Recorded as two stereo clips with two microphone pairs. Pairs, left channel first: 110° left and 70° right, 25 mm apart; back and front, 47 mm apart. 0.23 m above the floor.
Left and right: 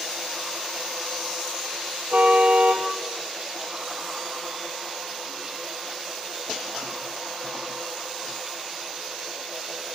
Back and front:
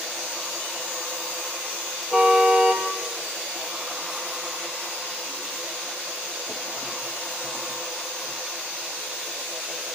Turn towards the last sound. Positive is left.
turn(degrees=-85)